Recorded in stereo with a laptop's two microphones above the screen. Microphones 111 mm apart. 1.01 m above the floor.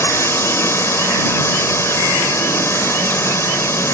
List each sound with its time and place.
0.0 s a drone: 25° left (ahead or behind)